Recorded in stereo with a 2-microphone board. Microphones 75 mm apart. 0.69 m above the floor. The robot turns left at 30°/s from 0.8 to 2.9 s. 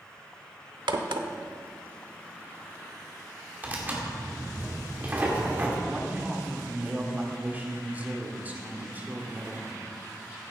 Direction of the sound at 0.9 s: 85° right.